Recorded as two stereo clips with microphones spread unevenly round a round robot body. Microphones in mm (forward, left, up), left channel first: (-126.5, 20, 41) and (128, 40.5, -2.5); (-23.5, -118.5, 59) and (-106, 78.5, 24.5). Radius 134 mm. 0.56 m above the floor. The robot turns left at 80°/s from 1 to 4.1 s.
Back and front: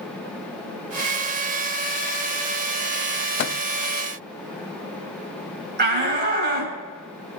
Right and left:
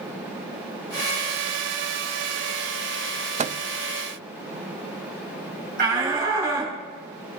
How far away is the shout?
About 5.5 m.